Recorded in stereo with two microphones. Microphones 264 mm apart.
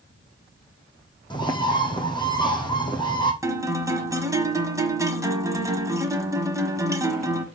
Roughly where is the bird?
Centre.